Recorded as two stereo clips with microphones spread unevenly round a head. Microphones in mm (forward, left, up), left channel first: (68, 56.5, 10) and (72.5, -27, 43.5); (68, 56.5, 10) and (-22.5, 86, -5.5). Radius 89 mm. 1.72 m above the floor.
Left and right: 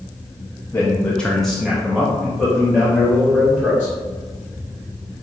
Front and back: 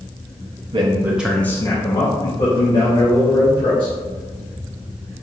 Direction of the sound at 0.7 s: 170° right.